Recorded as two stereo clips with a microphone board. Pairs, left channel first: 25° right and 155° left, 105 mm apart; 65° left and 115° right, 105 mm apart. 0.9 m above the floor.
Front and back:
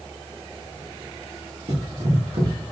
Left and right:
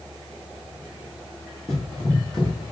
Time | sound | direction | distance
1.7 | running footsteps | 155° left | 1.8 m